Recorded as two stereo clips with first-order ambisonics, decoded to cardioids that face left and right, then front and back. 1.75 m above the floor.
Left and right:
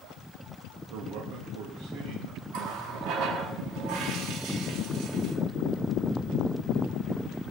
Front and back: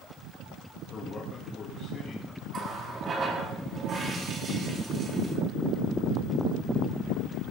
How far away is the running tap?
About 2.5 m.